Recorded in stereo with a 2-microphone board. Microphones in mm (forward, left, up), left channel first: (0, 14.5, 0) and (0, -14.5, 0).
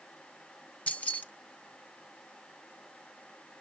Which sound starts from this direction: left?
Keys jangling, at 0.9 s.